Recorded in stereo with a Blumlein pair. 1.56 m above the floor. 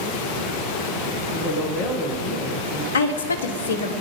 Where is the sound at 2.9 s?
65° left, 1.2 m.